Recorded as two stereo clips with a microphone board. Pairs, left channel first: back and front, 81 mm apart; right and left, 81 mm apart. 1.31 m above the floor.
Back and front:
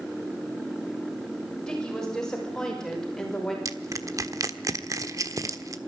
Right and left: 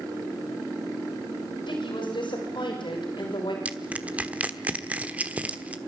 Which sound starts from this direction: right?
A woman speaking, at 1.7 s.